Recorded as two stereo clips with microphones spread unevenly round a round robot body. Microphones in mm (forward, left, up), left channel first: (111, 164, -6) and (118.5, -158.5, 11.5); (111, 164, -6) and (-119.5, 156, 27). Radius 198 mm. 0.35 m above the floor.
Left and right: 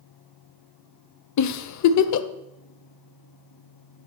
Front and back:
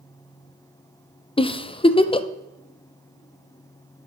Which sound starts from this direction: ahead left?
A giggle, at 1.4 s.